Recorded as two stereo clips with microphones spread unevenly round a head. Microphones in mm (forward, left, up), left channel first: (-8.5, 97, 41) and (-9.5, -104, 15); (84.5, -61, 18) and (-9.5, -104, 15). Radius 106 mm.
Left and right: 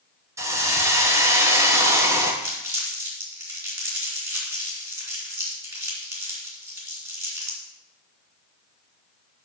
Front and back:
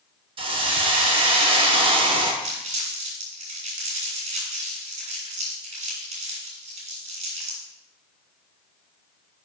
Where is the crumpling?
165° right, 3 m.